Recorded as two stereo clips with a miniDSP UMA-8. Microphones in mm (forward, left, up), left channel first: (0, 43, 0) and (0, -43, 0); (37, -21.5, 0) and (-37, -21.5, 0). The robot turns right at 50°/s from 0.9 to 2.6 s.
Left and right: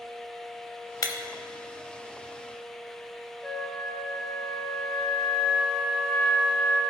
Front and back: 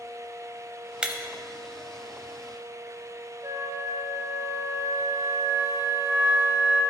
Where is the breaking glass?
105° left, 0.8 m; by 1.1 s 115° left, 0.8 m.